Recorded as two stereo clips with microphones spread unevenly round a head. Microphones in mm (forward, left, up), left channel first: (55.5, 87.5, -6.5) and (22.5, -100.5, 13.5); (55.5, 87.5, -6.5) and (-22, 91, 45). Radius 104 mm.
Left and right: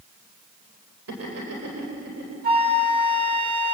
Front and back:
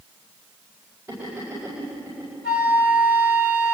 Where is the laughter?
105° right, 4 m.